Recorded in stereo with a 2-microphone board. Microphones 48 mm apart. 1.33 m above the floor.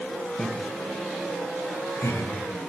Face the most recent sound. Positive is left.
turn(degrees=80)